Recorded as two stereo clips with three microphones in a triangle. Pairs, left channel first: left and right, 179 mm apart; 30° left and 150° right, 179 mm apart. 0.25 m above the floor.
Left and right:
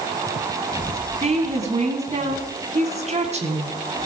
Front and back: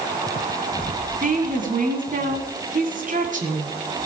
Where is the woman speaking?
130° right, 2.5 m.